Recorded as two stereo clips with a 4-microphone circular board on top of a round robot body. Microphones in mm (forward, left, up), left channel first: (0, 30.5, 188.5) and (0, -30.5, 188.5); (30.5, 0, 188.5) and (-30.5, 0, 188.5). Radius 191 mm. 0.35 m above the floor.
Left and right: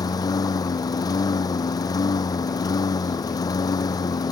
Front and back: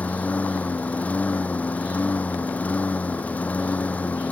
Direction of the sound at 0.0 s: 65° left.